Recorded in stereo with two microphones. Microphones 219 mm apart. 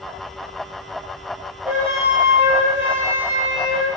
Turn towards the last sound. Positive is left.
turn(degrees=-10)  # may be behind; listen again after turning